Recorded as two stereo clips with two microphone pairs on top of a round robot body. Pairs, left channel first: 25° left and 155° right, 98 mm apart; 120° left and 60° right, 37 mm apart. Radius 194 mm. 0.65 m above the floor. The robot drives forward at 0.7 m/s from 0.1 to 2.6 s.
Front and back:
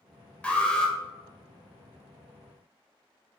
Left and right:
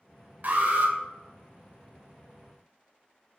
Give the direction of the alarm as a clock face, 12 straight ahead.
2 o'clock.